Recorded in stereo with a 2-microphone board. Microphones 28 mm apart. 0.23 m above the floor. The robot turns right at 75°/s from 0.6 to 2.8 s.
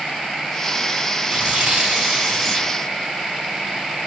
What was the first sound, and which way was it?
Tearing paper, 80° right.